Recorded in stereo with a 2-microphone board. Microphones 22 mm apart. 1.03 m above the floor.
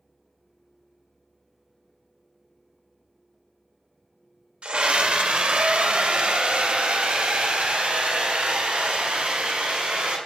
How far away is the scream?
About 2 m.